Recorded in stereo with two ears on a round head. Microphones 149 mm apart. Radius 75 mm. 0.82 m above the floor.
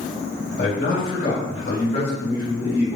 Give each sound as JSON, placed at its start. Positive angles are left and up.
{"t": 0.6, "sound": "a man speaking", "side_deg": 50, "distance_m": 2.0}